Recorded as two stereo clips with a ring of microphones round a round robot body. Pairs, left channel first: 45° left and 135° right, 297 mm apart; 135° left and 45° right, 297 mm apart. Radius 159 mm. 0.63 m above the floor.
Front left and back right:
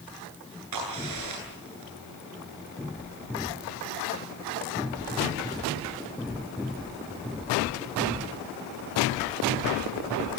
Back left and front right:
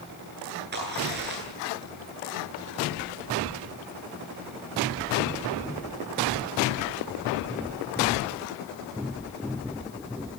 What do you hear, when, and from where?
0.7 s a crack: 105° right, 10 m